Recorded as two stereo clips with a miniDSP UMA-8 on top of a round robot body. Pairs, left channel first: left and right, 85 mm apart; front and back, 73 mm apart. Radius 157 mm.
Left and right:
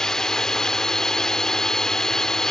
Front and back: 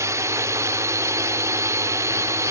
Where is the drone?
170° left.